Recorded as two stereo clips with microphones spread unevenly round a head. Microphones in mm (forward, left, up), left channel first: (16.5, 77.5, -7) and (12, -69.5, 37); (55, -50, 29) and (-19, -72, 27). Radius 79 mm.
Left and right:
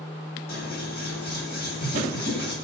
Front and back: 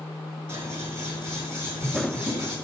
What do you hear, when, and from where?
0.5 s scissors: 70° left, 9.5 m